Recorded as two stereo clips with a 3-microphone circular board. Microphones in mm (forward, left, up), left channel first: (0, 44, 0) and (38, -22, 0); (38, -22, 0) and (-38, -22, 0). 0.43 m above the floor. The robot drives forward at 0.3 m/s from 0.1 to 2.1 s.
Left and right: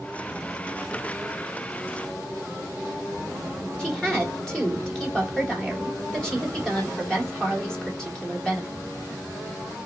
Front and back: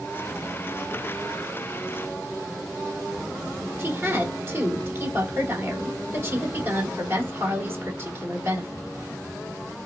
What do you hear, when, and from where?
3.8 s a woman speaking: 170° right, 1.0 m